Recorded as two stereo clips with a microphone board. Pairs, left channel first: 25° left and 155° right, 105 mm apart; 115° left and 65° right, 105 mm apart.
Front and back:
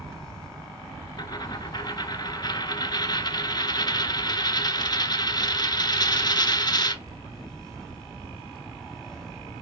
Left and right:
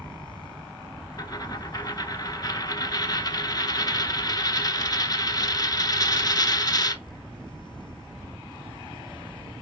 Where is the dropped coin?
65° left, 0.7 m.